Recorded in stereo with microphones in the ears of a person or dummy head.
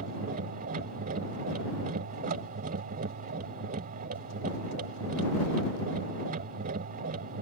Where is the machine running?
45° right (ahead or behind).